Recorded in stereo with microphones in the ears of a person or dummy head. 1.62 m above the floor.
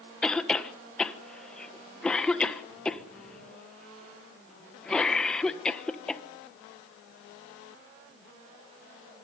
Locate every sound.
0.2 s a cough: 5° left (ahead or behind), 1.4 m